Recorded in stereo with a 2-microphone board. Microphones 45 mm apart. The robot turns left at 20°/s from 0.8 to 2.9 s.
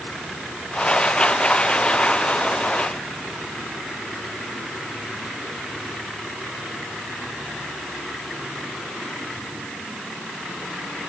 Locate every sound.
Only background noise.